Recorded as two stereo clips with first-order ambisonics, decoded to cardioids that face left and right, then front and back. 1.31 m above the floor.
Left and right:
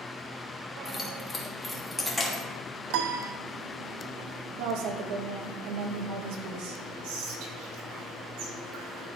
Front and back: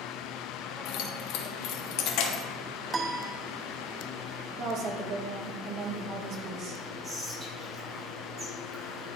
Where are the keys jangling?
15° left, 1.2 m.